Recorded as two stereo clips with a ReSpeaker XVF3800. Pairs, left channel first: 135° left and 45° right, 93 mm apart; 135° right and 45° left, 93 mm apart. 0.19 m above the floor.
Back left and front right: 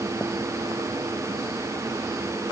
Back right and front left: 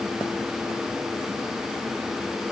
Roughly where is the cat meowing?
No cat meowing in this recording.